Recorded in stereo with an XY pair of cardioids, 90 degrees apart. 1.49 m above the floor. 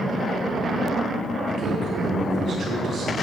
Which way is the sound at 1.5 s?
60° right.